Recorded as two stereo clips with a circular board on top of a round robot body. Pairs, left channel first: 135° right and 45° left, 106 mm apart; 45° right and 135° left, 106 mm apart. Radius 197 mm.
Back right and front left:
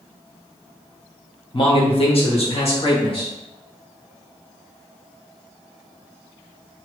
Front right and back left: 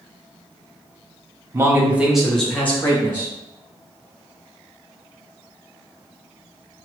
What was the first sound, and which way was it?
A man speaking, 170° right.